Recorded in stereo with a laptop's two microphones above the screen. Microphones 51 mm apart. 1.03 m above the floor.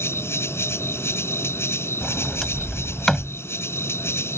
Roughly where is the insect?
Left.